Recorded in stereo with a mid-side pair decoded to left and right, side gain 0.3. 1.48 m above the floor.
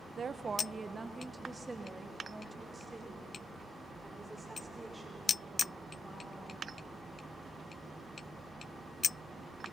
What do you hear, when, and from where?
0.2 s a woman speaking: 60° right, 1.0 m; by 6.7 s 15° right, 9 m